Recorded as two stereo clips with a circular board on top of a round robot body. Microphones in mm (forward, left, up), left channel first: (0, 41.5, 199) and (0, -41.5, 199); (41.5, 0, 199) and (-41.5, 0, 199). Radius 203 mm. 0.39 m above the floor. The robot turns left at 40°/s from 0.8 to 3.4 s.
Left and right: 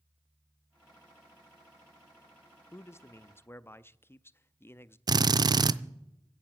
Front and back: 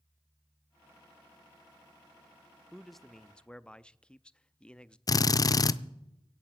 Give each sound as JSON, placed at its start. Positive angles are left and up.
{"t": 2.7, "sound": "a man speaking", "azimuth_deg": 95, "distance_m": 0.8}
{"t": 5.1, "sound": "a drill", "azimuth_deg": -50, "distance_m": 0.5}